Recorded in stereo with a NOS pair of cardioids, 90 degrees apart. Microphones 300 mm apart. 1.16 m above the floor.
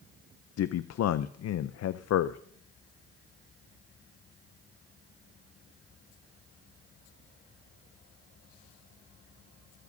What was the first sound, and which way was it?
A man speaking, 60° left.